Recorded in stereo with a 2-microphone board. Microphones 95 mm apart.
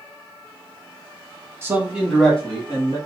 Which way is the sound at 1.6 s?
25° right (ahead or behind).